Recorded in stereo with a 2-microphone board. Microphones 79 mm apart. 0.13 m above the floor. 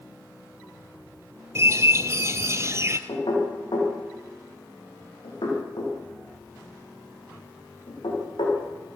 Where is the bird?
35° right (ahead or behind), 1.1 m.